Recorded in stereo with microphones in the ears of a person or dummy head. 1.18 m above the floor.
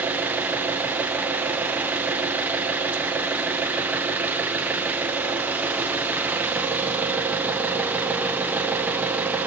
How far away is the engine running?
About 0.8 m.